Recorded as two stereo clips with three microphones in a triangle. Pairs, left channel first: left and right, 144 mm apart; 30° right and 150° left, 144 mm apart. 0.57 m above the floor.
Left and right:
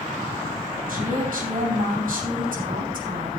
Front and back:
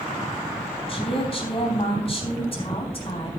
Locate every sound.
0.9 s a woman speaking: 80° right, 3.5 m